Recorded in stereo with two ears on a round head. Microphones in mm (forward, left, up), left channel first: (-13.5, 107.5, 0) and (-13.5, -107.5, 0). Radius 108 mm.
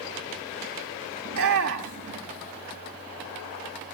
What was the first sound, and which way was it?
A shout, 60° right (ahead or behind).